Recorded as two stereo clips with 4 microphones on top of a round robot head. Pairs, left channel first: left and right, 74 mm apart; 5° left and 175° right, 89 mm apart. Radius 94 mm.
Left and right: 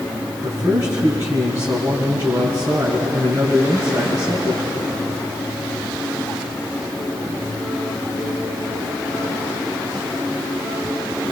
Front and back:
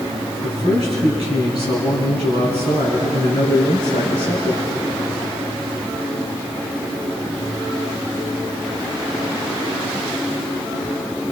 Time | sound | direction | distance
0.4 | a man speaking | 150° right | 4.5 m